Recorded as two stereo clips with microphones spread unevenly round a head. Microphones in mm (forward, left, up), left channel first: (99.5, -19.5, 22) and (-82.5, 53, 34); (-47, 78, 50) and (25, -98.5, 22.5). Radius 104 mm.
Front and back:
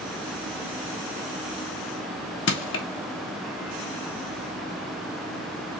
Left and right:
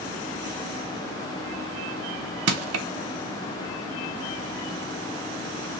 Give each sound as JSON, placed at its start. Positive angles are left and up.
{"t": 2.5, "sound": "crushing", "azimuth_deg": -50, "distance_m": 0.6}